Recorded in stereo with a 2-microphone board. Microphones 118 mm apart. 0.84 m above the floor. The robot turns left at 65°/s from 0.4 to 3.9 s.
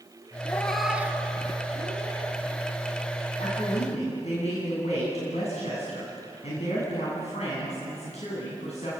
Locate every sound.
0.5 s a cat meowing: 20° left (ahead or behind), 1.4 m; by 2.4 s 60° right (ahead or behind), 1.4 m
3.4 s a woman speaking: 100° left, 7.5 m; by 8.9 s 65° left, 7.5 m